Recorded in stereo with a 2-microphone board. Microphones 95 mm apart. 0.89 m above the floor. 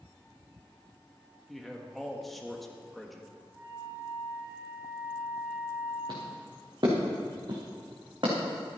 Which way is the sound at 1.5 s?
Centre (ahead or behind).